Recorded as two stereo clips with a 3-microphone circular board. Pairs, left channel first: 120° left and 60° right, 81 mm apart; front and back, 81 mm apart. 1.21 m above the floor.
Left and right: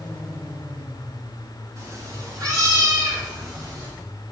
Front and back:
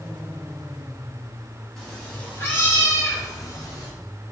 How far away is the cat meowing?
About 1.4 m.